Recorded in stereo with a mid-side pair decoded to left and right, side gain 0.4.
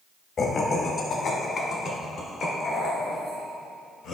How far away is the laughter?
About 1.1 m.